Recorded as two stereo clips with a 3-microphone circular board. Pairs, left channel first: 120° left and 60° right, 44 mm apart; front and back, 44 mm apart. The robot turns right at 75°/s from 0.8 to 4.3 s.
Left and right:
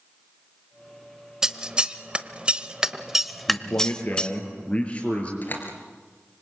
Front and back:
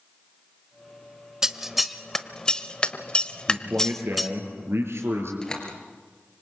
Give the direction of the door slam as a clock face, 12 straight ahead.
9 o'clock.